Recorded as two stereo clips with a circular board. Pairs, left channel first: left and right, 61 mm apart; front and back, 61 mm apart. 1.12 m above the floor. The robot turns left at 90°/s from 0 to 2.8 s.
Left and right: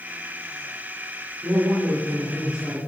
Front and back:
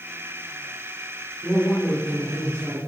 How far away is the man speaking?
About 4.5 m.